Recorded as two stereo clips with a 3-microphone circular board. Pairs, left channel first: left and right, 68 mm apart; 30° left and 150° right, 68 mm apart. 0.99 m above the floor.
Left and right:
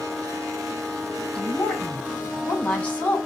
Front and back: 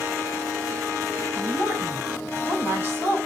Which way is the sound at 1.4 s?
160° left.